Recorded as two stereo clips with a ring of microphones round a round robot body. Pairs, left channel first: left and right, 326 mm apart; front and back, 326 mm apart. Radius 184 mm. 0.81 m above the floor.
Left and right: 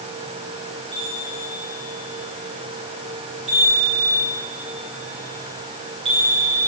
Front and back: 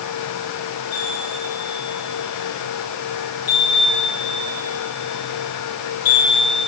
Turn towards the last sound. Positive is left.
turn(degrees=-15)